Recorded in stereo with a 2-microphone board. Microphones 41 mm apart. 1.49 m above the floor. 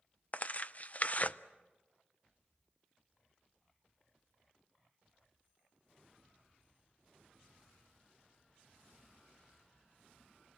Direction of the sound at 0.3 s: 40° left (ahead or behind).